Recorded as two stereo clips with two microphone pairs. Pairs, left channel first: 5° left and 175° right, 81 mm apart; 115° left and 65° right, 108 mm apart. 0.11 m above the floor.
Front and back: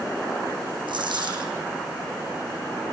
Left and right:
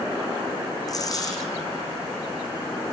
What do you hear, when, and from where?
0.9 s a dropped coin: 170° left, 3.5 m